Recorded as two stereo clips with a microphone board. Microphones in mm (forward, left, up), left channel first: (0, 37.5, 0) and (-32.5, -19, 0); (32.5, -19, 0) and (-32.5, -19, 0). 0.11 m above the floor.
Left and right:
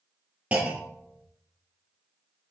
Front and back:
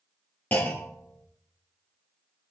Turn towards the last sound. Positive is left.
turn(degrees=-55)